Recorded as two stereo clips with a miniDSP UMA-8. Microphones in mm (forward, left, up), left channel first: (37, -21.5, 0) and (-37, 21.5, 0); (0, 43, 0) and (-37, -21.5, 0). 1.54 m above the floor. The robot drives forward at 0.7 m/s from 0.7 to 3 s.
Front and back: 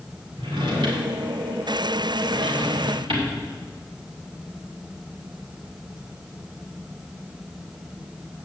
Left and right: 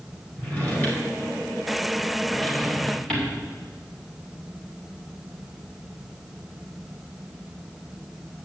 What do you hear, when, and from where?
0.4 s a drawer: 125° left, 3.5 m; by 3.3 s 140° left, 4.5 m